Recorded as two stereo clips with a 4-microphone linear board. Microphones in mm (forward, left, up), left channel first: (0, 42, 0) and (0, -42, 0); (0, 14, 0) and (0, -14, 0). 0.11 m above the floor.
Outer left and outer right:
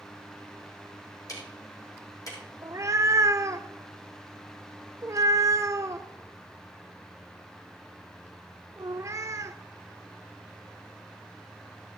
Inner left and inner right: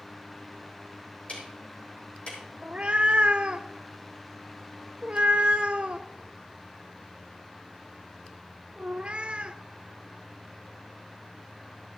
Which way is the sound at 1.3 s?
45° left (ahead or behind).